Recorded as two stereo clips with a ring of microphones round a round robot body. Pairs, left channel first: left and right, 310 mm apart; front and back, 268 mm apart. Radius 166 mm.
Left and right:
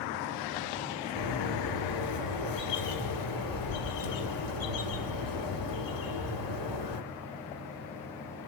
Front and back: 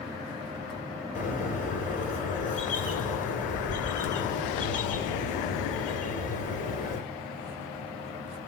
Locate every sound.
1.1 s a bird: 65° left, 4 m